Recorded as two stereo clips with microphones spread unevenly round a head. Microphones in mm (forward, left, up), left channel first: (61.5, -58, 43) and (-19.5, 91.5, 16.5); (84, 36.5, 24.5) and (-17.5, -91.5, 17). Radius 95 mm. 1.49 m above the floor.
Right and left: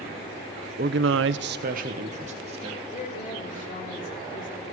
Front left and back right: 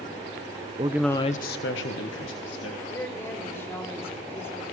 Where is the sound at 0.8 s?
170° left, 0.6 m; by 2.8 s 65° left, 2 m.